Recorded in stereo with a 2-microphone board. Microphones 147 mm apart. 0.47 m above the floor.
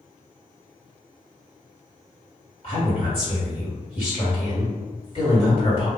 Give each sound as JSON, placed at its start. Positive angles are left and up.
{"t": 2.6, "sound": "a woman speaking", "side_deg": 45, "distance_m": 1.9}